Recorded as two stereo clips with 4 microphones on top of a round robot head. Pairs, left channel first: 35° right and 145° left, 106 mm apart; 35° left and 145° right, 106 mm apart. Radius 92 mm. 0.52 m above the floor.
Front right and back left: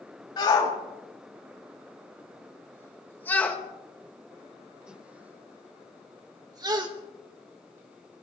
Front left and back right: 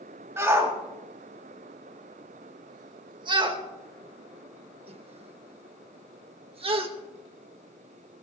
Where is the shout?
80° right, 3 m; by 6.9 s 170° right, 1.9 m.